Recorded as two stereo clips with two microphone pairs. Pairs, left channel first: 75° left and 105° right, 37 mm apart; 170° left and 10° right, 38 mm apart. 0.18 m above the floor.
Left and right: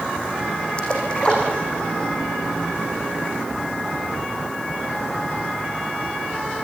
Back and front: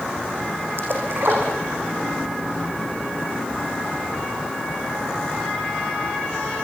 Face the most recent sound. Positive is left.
turn(degrees=10)